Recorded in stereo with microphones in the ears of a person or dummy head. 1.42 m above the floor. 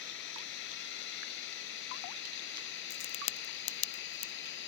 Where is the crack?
35° left (ahead or behind).